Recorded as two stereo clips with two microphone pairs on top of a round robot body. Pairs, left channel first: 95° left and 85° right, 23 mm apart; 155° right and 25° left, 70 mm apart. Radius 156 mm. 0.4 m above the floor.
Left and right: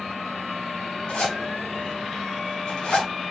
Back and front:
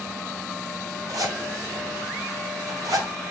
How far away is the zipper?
About 4.5 m.